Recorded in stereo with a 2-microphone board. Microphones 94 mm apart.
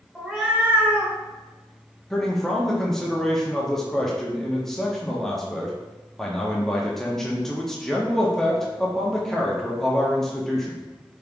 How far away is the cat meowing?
About 1.1 m.